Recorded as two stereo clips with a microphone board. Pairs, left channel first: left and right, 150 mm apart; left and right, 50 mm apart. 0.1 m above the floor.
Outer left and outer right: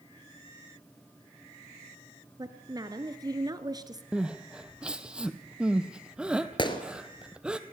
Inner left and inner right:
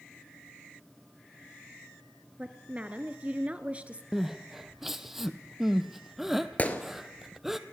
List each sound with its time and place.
2.4 s a woman speaking: 25° right (ahead or behind), 1.2 m
4.1 s crying: 5° right (ahead or behind), 1.1 m
6.6 s a gunshot: 30° left (ahead or behind), 1.6 m